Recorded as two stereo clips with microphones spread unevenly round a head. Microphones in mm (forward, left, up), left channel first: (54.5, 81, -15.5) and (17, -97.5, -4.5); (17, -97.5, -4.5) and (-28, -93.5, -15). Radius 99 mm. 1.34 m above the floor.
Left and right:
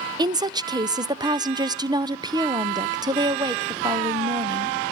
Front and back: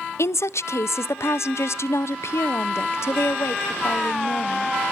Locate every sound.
0.2 s a woman speaking: 30° right, 0.5 m